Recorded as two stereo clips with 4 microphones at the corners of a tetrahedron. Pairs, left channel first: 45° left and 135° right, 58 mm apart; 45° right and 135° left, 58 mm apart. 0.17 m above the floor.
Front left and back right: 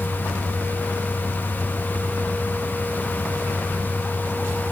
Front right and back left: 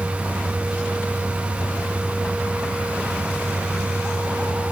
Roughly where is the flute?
No flute in this recording.